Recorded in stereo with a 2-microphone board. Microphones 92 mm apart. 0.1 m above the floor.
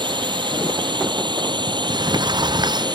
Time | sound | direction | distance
0.0 | a drone | 60° right (ahead or behind) | ?
1.7 | a sliding door | 50° right (ahead or behind) | ?